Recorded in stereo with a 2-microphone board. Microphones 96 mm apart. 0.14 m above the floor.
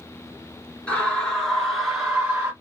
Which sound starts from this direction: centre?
A scream, at 0.9 s.